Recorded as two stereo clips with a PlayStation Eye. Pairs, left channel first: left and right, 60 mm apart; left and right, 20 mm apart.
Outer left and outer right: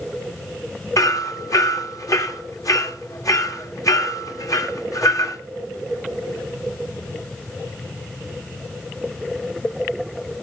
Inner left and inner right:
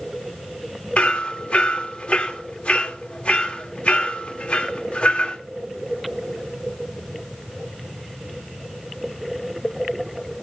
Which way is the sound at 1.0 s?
70° left (ahead or behind).